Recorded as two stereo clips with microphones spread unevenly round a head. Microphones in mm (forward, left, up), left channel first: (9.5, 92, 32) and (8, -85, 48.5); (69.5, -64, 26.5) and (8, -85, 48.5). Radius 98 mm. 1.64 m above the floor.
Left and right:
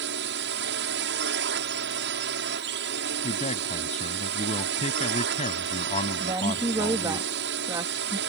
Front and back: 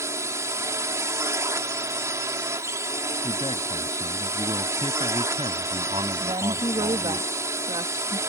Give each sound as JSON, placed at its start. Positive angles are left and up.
{"t": 0.0, "sound": "a drone", "azimuth_deg": -120}
{"t": 3.2, "sound": "a man speaking", "azimuth_deg": 145}
{"t": 6.2, "sound": "a woman speaking", "azimuth_deg": -165}